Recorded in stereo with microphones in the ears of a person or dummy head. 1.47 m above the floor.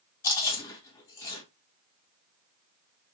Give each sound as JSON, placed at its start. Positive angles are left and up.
{"t": 0.2, "sound": "chewing", "side_deg": 20, "distance_m": 2.0}